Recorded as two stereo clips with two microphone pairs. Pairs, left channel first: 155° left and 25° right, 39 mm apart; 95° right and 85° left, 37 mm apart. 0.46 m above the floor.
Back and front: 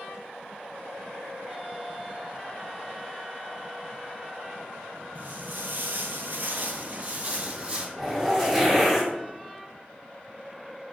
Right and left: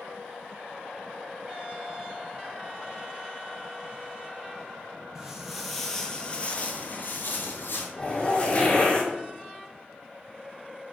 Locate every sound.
5.2 s footsteps: 10° left, 0.9 m; by 7.9 s 85° right, 1.1 m
8.0 s a zipper: 105° right, 1.1 m